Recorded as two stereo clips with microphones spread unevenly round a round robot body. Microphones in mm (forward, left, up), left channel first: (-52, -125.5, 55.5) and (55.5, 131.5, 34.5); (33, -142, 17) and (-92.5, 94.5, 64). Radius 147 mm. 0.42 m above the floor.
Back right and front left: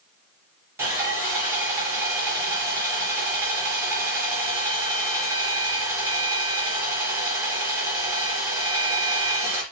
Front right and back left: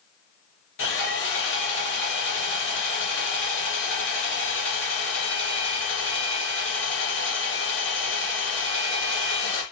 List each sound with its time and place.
0.8 s sawing: 15° right, 4 m